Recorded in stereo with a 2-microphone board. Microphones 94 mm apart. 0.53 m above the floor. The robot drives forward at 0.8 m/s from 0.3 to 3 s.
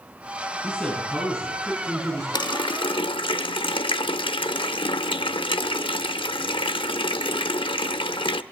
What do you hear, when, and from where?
0.6 s a man speaking: 5° left (ahead or behind), 5 m
2.3 s a running tap: 50° left (ahead or behind), 0.8 m; by 8.4 s 65° left (ahead or behind), 0.7 m